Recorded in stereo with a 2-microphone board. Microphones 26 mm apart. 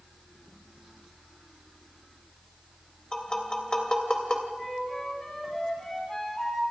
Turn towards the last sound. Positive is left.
turn(degrees=15)  # may be behind; listen again after turning